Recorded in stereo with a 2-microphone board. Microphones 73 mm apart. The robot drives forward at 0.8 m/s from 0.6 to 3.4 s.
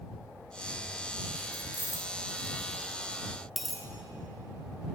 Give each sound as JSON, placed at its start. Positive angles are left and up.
{"t": 1.5, "sound": "keys jangling", "side_deg": 75, "distance_m": 0.9}
{"t": 3.6, "sound": "a dropped coin", "side_deg": 0, "distance_m": 0.6}